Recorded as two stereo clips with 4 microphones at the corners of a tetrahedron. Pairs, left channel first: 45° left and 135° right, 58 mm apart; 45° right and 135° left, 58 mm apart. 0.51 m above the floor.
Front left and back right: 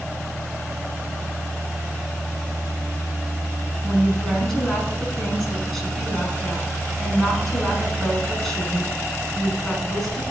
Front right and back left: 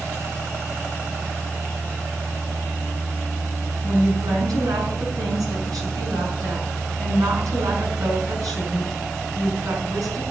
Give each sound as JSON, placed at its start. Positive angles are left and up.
{"t": 3.8, "sound": "a woman speaking", "azimuth_deg": 125, "distance_m": 6.0}